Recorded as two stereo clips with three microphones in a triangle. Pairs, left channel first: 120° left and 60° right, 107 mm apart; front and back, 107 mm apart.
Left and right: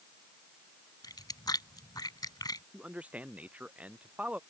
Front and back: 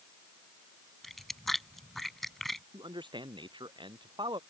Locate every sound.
1.0 s chewing: 90° left
2.7 s a man speaking: 140° right